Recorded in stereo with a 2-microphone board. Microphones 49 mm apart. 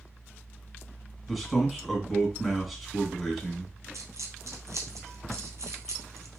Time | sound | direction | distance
1.3 | a man speaking | centre (ahead or behind) | 1.6 m
3.9 | a dropped coin | 75° right (ahead or behind) | 1.2 m